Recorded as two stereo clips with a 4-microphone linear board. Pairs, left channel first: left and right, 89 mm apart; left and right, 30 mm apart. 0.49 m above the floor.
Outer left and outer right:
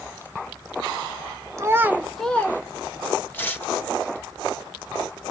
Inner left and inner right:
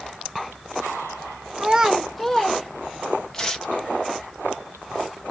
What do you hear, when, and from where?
1.6 s a child speaking: 35° right (ahead or behind), 0.8 m; by 3.3 s 50° left (ahead or behind), 1.2 m
3.3 s tearing paper: 25° left (ahead or behind), 0.8 m